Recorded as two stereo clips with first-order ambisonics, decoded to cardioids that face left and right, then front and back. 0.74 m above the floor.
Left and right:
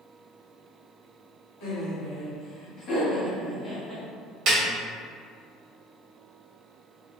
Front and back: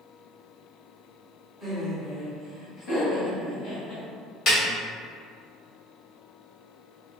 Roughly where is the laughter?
Left.